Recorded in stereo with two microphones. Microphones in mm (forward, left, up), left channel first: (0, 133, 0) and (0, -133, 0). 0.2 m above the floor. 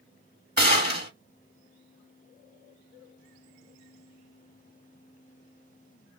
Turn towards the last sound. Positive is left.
turn(degrees=-35)  # may be behind; listen again after turning